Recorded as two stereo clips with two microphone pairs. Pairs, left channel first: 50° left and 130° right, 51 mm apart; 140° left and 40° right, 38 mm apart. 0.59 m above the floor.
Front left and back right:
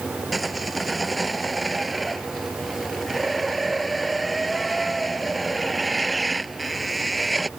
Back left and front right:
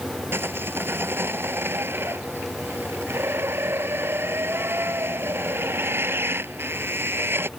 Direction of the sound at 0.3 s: 40° right.